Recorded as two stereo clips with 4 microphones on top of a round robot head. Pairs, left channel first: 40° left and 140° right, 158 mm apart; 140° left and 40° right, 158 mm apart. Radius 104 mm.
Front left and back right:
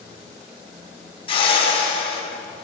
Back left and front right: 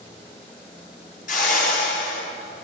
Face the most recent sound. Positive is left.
turn(degrees=100)